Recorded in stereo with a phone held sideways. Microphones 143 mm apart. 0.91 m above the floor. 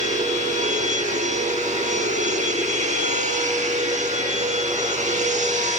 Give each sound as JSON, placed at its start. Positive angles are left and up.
{"t": 0.0, "sound": "a machine running", "side_deg": -55, "distance_m": 0.9}